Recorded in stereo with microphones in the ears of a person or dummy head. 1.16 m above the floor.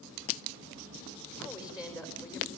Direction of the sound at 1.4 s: 15° left (ahead or behind).